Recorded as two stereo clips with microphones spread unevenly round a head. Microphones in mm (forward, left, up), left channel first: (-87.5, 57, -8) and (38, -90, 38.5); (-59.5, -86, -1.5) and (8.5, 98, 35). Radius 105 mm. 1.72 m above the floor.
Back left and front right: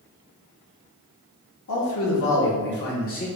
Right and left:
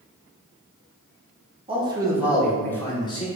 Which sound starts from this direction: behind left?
A man speaking, at 1.7 s.